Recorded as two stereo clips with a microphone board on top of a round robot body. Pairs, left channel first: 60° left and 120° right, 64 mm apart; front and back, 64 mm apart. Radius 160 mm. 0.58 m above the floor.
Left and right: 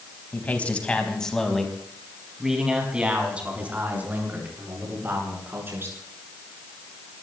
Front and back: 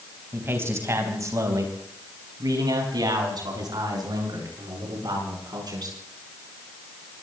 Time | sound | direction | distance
0.3 | a man speaking | 125° left | 4 m